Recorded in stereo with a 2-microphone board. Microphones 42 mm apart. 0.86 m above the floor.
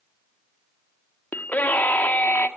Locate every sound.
1.3 s a scream: 45° left (ahead or behind), 1.8 m